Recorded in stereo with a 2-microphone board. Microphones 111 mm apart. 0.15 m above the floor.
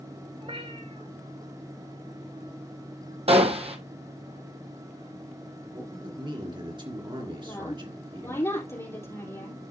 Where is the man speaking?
45° right (ahead or behind), 2.5 m.